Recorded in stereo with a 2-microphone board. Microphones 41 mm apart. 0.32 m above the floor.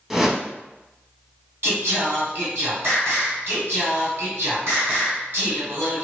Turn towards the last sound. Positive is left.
turn(degrees=-60)  # may be behind; listen again after turning